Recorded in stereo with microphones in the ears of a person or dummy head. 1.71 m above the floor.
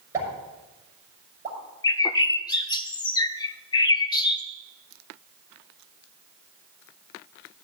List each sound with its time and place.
0.1 s a pop: 15° right (ahead or behind), 6.5 m
1.8 s a bird: 20° left (ahead or behind), 0.5 m